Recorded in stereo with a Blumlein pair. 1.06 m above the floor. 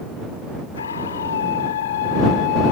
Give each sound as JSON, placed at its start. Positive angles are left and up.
{"t": 0.8, "sound": "a scream", "azimuth_deg": 70}